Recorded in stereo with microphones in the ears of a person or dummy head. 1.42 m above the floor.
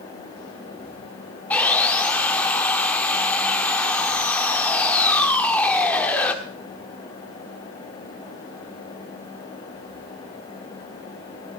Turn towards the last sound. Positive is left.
turn(degrees=15)  # may be behind; listen again after turning